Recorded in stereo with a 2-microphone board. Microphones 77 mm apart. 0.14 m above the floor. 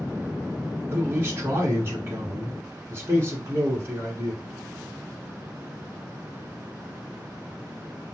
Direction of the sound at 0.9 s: 30° right (ahead or behind).